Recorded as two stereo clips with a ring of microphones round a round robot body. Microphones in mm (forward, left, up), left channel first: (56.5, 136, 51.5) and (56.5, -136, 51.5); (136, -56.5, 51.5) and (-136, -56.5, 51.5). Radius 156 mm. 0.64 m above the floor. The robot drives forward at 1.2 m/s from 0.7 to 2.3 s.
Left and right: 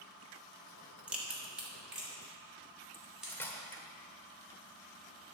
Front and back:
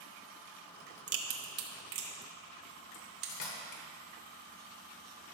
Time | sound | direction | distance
1.1 | a crack | 175° right | 1.3 m
2.9 | cutlery clinking | 10° left | 1.7 m